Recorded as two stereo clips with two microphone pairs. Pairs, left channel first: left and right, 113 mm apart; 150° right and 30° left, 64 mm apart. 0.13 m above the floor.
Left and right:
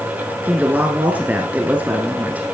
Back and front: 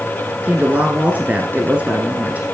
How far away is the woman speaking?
About 1.5 m.